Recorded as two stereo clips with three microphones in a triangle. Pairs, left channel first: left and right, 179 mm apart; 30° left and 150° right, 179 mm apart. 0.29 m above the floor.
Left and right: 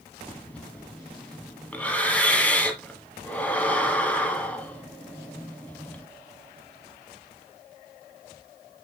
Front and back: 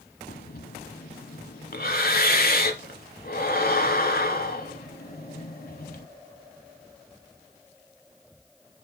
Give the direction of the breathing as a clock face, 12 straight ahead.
12 o'clock.